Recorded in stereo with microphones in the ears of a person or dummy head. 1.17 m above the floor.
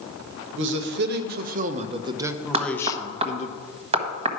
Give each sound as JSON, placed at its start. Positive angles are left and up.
{"t": 0.5, "sound": "a man speaking", "side_deg": -65, "distance_m": 1.3}
{"t": 2.5, "sound": "knocking", "side_deg": -35, "distance_m": 1.2}